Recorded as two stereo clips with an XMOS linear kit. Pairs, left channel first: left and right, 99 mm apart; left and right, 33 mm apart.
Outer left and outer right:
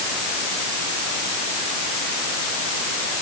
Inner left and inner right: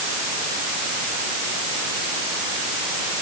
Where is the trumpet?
I don't hear a trumpet.